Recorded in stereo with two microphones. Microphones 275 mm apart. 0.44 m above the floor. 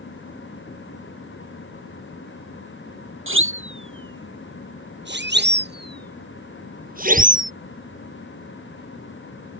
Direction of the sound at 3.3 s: 50° right (ahead or behind).